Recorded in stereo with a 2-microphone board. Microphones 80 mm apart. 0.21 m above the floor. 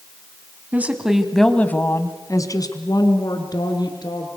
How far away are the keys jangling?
I don't hear keys jangling.